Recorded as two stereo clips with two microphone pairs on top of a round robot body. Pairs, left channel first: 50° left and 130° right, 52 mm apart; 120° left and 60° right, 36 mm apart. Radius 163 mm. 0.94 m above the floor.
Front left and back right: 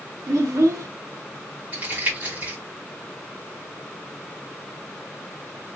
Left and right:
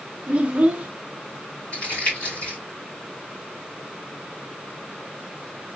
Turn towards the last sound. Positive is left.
turn(degrees=170)